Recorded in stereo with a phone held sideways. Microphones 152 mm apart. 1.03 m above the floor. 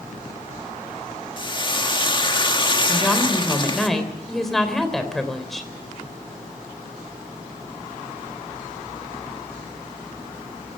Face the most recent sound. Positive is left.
turn(degrees=5)  # may be behind; listen again after turning